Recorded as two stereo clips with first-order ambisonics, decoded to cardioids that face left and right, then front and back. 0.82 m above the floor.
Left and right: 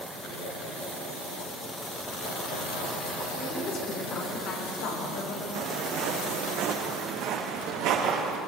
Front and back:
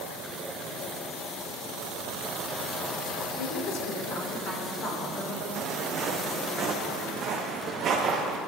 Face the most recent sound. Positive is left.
turn(degrees=-120)